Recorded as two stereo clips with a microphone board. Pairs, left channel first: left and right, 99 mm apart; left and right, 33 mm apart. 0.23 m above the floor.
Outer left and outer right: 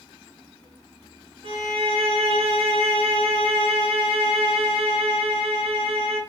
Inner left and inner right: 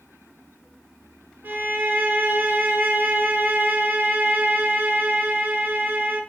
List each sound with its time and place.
1.4 s a violin: 75° right (ahead or behind), 0.5 m